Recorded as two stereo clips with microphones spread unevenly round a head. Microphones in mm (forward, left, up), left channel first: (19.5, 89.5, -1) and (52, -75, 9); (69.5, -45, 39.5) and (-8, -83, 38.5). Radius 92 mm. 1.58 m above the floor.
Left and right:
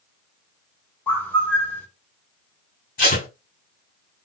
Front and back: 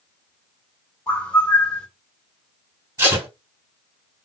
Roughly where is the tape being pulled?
Behind left.